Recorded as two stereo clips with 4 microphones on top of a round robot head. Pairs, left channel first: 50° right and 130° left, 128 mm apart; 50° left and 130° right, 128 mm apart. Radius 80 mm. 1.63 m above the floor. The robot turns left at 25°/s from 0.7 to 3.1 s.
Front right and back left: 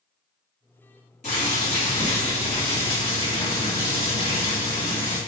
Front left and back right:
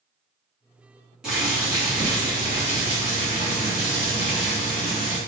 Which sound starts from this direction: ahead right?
Boiling, at 1.2 s.